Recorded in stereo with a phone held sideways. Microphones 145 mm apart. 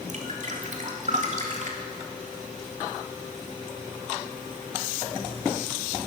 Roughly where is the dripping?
Right.